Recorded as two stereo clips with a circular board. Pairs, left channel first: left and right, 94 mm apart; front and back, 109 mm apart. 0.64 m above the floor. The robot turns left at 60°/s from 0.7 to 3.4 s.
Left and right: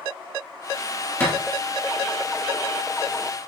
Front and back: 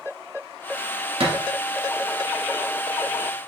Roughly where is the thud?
Behind left.